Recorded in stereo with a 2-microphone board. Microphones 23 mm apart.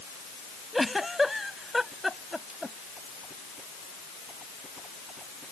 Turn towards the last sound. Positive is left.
turn(degrees=-5)  # may be behind; listen again after turning